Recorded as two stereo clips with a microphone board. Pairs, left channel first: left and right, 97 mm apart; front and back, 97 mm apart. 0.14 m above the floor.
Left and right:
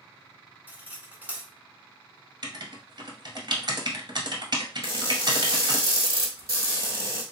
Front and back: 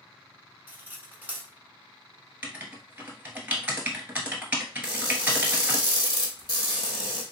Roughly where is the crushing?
Ahead right.